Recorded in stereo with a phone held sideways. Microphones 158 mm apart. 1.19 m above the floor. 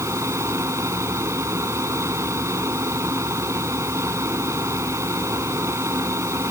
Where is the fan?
20° right (ahead or behind).